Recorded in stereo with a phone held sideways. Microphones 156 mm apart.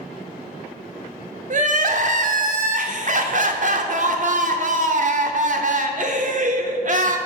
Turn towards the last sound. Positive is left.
turn(degrees=-55)  # may be behind; listen again after turning